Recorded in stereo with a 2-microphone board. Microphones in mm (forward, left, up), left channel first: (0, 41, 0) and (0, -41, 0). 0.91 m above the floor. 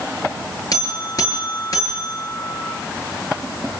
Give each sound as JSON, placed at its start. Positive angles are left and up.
{"t": 0.7, "sound": "a buzzer", "side_deg": 50, "distance_m": 7.0}